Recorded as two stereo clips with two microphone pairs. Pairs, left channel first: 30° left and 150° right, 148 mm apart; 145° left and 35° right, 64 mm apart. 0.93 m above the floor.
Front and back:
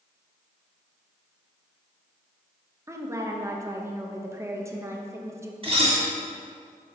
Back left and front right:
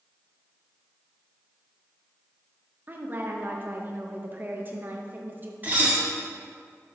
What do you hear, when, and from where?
2.9 s a woman speaking: 80° right, 0.7 m
5.6 s dishes clattering: 95° right, 1.4 m